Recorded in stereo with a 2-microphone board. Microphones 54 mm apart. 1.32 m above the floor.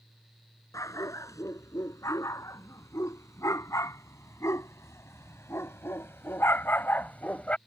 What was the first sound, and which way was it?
A dog barking, 75° left (ahead or behind).